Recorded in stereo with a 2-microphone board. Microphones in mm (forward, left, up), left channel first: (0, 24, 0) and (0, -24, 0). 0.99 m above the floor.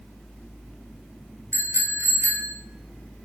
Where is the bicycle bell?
65° right (ahead or behind), 3 m; by 2.5 s 75° right (ahead or behind), 1.9 m.